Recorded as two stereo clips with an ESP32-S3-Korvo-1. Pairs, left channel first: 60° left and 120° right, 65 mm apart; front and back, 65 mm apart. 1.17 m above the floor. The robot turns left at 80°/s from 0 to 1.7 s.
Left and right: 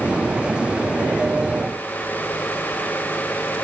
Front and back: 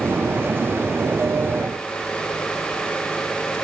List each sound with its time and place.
Only background noise.